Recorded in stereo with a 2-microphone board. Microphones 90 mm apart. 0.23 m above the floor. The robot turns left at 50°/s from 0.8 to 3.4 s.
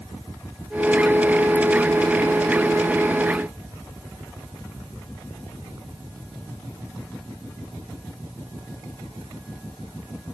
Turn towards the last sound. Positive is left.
No sound to turn to.